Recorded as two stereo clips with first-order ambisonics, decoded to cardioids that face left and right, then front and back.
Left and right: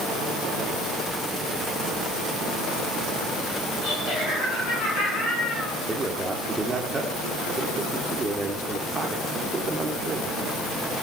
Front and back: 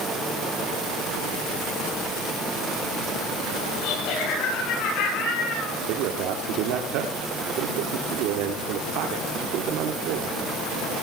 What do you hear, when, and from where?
3.8 s laughter: 35° left, 8.5 m; by 5.8 s 40° left, 7.5 m
5.7 s a man speaking: 170° right, 1.7 m